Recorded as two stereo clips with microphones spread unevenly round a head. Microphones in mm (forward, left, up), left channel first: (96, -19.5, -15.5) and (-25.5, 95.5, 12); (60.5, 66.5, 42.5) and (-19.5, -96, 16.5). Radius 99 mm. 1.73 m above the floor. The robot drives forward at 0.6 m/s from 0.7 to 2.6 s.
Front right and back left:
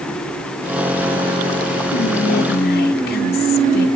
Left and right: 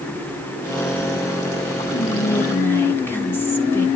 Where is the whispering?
10° right, 3 m; by 3.9 s 15° right, 2.5 m.